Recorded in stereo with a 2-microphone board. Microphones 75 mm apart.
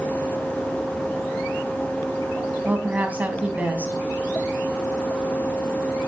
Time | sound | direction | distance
2.6 | a woman speaking | 20° right (ahead or behind) | 3 m